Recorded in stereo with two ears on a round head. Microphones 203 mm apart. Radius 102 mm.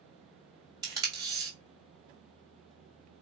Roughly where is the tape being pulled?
Centre.